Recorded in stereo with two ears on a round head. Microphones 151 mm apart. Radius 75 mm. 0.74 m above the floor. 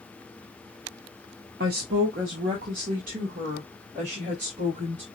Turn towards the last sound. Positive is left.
turn(degrees=-45)  # may be behind; listen again after turning